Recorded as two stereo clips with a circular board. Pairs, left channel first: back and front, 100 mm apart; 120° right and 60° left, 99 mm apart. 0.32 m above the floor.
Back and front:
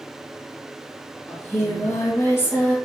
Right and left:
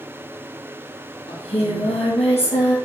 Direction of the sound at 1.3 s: 110° right.